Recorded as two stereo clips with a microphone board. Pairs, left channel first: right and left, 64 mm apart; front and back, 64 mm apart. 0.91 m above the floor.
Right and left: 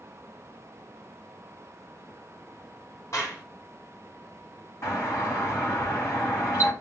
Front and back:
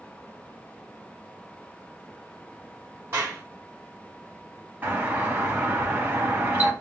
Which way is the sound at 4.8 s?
120° right.